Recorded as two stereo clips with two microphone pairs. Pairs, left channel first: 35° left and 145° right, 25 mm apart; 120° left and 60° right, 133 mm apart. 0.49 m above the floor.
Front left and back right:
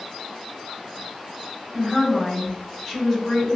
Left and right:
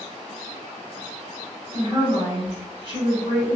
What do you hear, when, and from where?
1.7 s a woman speaking: 35° right, 1.7 m